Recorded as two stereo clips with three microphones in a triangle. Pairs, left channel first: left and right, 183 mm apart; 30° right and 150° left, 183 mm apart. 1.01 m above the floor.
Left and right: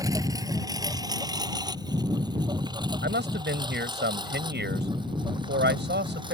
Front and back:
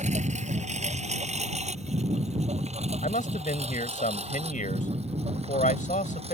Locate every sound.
0.0 s a lawn mower: 160° right; by 6.3 s 155° right
3.0 s a man speaking: 75° right